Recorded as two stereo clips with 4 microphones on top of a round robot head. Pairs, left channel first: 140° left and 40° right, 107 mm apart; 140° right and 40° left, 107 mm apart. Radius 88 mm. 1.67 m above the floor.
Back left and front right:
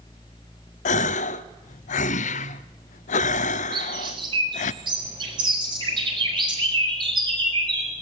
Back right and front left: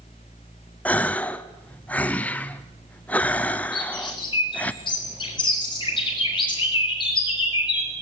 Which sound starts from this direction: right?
A bird, at 3.7 s.